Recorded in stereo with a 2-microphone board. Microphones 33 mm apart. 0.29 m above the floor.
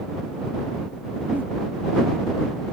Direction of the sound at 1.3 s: 65° right (ahead or behind).